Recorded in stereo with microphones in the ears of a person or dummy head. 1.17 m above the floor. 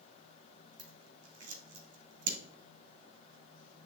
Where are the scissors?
55° right (ahead or behind), 1.7 m.